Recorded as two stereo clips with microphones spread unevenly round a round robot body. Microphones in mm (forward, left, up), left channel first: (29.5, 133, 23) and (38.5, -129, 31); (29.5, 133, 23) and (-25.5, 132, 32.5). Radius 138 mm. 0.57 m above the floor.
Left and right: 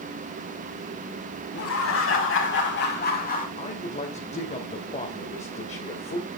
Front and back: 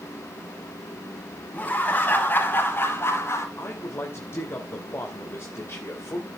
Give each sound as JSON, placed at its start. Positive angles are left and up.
{"t": 1.5, "sound": "laughter", "azimuth_deg": 60, "distance_m": 5.5}
{"t": 3.6, "sound": "a man speaking", "azimuth_deg": 30, "distance_m": 2.5}